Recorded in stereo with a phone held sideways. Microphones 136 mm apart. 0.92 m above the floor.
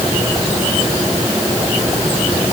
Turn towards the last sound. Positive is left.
No sound to turn to.